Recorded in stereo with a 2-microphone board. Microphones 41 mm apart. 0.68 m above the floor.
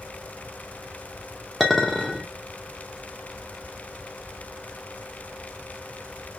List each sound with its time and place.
1.6 s a clink: centre (ahead or behind), 0.8 m